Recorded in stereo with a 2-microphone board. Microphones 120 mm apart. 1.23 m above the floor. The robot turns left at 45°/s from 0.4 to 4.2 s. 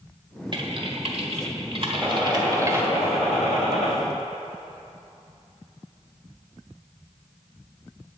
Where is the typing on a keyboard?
45° right (ahead or behind), 1.5 m; by 2.9 s 15° right (ahead or behind), 1.5 m.